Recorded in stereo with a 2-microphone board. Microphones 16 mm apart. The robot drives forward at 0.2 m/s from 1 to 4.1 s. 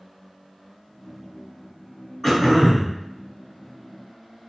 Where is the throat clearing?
25° left (ahead or behind), 1.4 m.